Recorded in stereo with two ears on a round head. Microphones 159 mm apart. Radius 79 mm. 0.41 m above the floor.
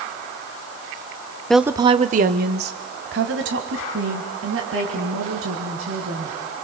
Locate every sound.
1.5 s a woman speaking: 5° left (ahead or behind), 0.8 m; by 6.3 s 80° right, 6 m